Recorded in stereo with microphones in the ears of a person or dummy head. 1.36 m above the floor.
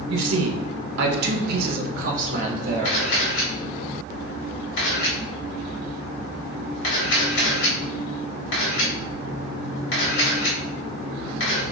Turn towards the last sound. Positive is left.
turn(degrees=75)  # may be behind; listen again after turning